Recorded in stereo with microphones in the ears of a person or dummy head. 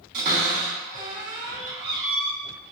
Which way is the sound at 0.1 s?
50° right (ahead or behind).